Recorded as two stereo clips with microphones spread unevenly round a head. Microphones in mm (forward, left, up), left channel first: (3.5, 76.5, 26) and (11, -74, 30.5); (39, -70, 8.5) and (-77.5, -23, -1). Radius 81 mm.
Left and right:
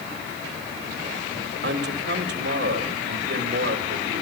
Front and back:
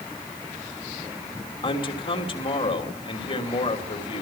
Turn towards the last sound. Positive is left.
turn(degrees=-70)